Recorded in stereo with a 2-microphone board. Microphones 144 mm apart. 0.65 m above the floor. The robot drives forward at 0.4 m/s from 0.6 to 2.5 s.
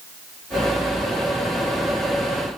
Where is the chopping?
No chopping in this recording.